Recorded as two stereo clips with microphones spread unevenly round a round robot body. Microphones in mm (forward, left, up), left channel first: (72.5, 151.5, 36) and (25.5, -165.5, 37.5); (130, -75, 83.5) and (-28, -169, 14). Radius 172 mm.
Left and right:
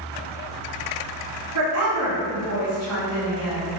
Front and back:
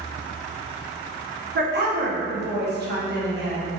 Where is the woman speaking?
145° right, 1.5 m.